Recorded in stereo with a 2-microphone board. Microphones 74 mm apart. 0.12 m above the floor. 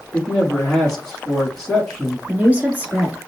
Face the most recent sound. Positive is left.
turn(degrees=-25)  # may be behind; listen again after turning